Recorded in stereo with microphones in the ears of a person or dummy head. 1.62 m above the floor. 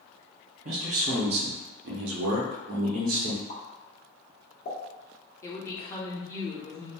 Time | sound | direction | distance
0.7 | a man speaking | 45° right (ahead or behind) | 0.9 m
3.5 | a pop | 45° left (ahead or behind) | 1.1 m
5.4 | a woman speaking | 20° left (ahead or behind) | 0.9 m